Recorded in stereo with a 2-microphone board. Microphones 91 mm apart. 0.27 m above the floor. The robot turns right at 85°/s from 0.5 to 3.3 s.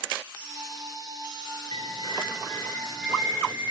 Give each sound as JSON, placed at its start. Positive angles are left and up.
{"t": 1.7, "sound": "a bird", "azimuth_deg": 70, "distance_m": 4.0}